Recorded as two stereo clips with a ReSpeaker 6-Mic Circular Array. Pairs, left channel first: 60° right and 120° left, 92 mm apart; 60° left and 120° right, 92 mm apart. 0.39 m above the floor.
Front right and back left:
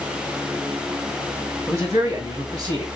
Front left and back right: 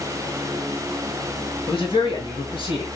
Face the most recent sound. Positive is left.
turn(degrees=80)